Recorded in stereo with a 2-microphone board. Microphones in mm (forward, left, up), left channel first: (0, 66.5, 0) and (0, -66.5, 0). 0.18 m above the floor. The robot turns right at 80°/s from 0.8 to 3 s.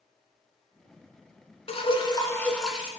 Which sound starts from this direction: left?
Dripping, at 1.7 s.